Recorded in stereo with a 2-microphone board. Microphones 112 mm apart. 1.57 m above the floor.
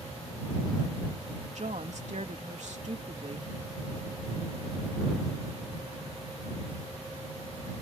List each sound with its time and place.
1.6 s a woman speaking: 75° right (ahead or behind)